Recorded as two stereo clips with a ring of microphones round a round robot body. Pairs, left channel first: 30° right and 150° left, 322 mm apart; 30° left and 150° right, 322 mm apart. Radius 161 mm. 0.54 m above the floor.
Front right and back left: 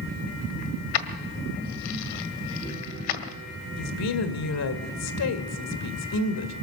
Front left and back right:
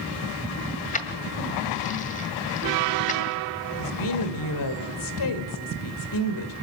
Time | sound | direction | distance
0.9 | keys jangling | 40° right | 1.8 m
3.8 | a woman speaking | 10° left | 2 m